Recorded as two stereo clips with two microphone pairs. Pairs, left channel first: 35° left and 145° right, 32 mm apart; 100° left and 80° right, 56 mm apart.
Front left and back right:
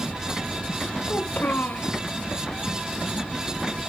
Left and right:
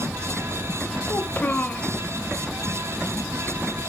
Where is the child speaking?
40° left, 1.1 m.